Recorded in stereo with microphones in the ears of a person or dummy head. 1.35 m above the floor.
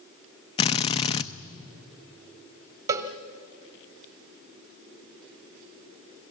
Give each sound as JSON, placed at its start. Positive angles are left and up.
{"t": 0.6, "sound": "a drill", "side_deg": 30, "distance_m": 0.8}
{"t": 2.9, "sound": "a cowbell", "side_deg": -15, "distance_m": 1.0}